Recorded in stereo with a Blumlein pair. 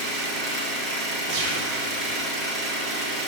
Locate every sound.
0.0 s an engine running: 15° right, 2.0 m
1.3 s a gunshot: 35° right, 1.9 m